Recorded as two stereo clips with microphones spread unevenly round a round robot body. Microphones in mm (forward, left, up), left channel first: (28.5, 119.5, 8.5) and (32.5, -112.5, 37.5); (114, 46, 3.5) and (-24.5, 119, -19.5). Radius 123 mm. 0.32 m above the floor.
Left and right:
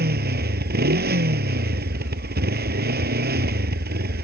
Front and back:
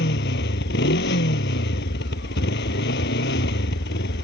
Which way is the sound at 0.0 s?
40° right.